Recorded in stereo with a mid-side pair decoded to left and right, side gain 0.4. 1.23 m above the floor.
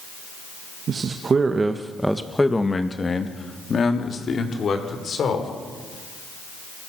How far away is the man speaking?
About 2 m.